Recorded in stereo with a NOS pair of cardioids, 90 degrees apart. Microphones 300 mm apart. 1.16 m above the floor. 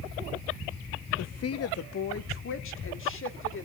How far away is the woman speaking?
About 1.2 m.